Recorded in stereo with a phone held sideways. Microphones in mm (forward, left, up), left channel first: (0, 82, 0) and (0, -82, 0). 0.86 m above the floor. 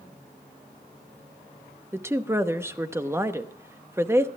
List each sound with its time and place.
1.9 s a woman speaking: 15° right (ahead or behind), 0.8 m